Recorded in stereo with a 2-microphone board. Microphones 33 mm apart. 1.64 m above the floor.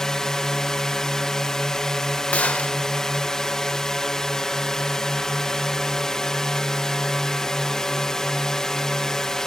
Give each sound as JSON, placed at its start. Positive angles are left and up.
{"t": 0.0, "sound": "a drone", "side_deg": 20}
{"t": 2.3, "sound": "a gunshot", "side_deg": 45}